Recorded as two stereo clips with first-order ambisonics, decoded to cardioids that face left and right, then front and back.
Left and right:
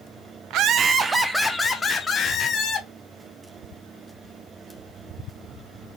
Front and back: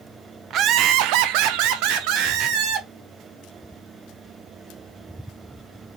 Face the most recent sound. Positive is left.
turn(degrees=150)